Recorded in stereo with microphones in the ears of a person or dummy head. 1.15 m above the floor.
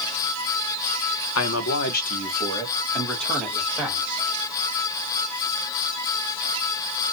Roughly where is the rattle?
I don't hear a rattle.